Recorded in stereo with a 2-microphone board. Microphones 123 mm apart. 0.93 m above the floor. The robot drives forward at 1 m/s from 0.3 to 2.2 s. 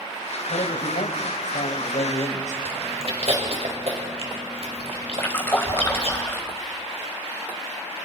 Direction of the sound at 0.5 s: 80° left.